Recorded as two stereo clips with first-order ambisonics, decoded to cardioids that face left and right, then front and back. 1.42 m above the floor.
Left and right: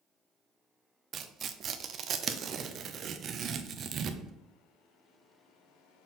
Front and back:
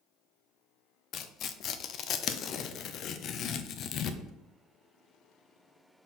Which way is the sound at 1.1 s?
40° right.